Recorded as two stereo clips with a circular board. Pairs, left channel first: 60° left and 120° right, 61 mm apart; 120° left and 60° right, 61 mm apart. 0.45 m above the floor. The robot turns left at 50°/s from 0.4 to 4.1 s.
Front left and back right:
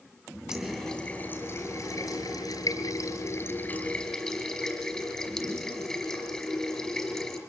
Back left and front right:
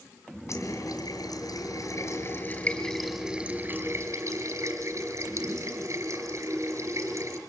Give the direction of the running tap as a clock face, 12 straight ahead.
7 o'clock.